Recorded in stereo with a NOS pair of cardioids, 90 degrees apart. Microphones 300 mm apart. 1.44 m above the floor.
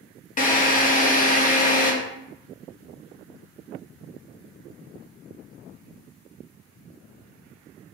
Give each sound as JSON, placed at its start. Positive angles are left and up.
{"t": 0.4, "sound": "a drill", "azimuth_deg": 30, "distance_m": 0.9}